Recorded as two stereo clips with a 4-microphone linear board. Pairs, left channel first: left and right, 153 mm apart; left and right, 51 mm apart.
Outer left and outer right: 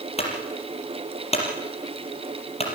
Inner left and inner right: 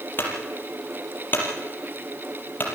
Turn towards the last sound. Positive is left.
turn(degrees=40)  # may be behind; listen again after turning